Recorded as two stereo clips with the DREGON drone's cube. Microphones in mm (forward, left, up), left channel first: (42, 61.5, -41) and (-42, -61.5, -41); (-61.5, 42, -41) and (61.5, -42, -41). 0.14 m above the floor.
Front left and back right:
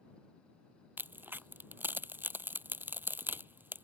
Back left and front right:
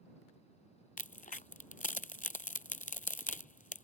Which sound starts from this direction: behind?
A crack, at 1.0 s.